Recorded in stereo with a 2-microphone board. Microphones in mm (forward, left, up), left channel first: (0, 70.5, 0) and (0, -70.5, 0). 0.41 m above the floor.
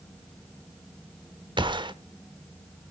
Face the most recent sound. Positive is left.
turn(degrees=-35)  # may be behind; listen again after turning